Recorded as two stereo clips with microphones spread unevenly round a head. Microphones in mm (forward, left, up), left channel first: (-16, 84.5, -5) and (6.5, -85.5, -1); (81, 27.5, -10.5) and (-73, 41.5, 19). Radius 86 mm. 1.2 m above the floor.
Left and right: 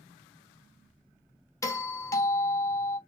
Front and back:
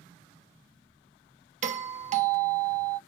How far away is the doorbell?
About 0.6 m.